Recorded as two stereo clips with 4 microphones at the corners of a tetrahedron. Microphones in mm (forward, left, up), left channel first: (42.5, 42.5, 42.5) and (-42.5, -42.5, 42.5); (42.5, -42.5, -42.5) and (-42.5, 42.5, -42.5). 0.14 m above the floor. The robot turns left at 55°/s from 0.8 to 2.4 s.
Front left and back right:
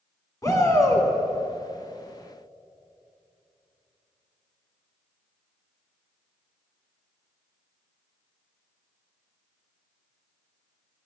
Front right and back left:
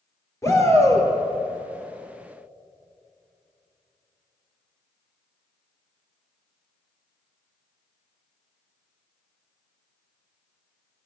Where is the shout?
5° left, 2.0 m; by 1.1 s 10° right, 2.0 m.